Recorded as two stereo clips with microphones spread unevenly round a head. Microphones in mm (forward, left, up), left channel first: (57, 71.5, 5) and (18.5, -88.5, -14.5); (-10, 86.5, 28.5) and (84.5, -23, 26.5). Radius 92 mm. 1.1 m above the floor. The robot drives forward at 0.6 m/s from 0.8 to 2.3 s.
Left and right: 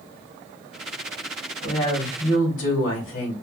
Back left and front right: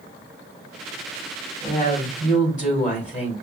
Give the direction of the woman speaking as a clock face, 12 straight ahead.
9 o'clock.